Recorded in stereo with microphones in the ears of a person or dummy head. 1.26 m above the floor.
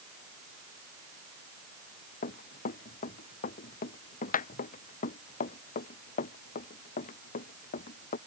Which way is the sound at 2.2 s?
40° left (ahead or behind).